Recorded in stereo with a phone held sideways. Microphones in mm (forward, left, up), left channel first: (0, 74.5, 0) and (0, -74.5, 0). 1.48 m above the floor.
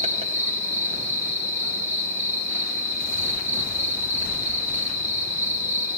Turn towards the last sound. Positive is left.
turn(degrees=-45)  # may be behind; listen again after turning